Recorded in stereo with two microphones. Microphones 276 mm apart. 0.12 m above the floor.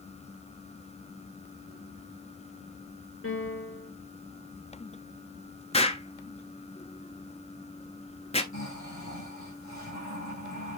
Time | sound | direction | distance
3.2 | a piano | 50° left (ahead or behind) | 2.5 m
5.7 | an explosion | 20° left (ahead or behind) | 0.5 m
8.5 | snoring | 65° left (ahead or behind) | 4.5 m